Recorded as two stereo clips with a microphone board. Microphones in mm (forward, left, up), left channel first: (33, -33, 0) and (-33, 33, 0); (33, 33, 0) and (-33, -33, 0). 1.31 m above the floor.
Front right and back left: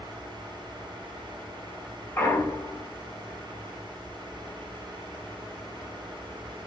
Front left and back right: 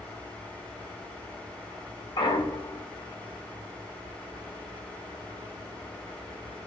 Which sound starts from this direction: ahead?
A clunk, at 2.2 s.